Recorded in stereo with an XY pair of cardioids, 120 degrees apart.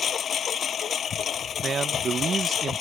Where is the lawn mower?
45° left.